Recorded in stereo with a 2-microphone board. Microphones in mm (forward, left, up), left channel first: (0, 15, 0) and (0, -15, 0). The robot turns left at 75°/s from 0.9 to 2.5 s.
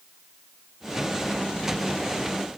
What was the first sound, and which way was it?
Only background noise.